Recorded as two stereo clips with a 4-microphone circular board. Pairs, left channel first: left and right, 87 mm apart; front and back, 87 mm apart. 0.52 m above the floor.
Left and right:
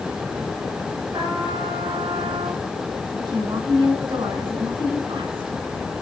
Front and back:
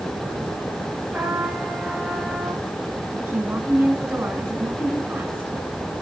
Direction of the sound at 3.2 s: 110° right.